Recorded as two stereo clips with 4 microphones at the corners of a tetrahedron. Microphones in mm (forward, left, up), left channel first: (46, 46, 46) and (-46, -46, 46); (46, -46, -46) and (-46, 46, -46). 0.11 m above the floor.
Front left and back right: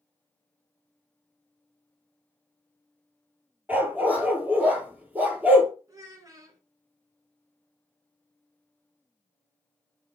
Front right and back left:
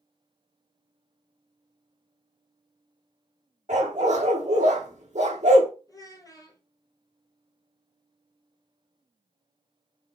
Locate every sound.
3.7 s a dog barking: 150° left, 1.1 m
5.9 s a child speaking: 90° right, 1.1 m